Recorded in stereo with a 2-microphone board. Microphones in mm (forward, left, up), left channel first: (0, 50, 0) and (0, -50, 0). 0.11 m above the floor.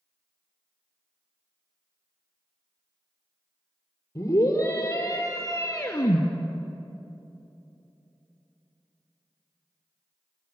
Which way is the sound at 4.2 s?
30° left (ahead or behind).